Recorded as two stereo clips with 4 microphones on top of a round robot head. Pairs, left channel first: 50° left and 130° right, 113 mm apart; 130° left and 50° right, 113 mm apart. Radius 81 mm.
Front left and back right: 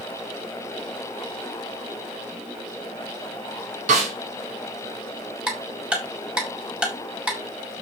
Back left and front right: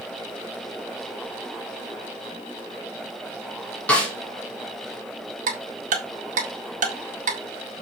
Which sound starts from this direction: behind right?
A snare drum, at 3.9 s.